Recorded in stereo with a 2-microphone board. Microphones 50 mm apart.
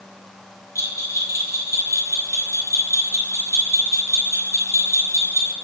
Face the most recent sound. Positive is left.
turn(degrees=80)